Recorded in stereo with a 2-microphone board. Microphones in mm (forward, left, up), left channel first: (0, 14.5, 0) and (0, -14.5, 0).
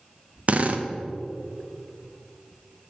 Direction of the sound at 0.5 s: 50° right (ahead or behind).